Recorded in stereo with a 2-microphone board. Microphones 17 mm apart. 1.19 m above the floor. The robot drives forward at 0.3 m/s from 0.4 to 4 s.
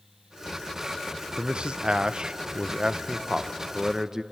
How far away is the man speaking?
About 0.6 m.